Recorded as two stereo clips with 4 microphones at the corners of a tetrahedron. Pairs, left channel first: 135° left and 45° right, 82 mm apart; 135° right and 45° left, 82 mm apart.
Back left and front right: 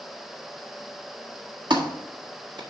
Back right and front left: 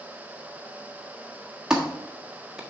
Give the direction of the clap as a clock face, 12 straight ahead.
1 o'clock.